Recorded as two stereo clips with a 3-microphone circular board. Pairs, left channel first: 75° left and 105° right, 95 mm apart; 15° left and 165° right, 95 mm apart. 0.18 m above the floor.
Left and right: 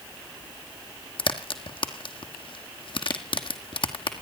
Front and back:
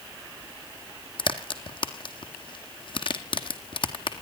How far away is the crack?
About 1.4 m.